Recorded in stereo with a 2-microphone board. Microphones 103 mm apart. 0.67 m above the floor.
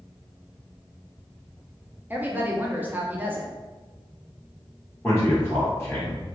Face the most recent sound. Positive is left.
turn(degrees=15)  # may be behind; listen again after turning